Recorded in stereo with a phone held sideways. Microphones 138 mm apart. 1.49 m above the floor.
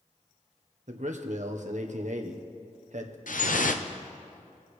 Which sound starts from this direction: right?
A man speaking, at 0.9 s.